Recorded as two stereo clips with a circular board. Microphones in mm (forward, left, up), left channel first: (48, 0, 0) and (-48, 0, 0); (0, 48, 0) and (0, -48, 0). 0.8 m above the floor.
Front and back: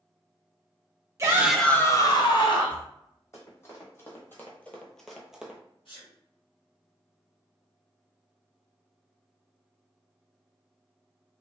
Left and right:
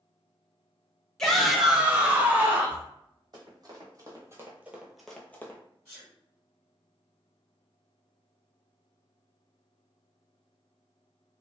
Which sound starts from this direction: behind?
A shout, at 1.2 s.